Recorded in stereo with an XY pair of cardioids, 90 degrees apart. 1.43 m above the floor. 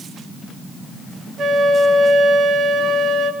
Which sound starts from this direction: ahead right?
A flute, at 1.4 s.